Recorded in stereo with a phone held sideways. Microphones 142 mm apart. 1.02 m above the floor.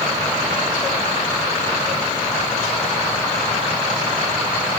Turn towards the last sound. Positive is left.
No sound to turn to.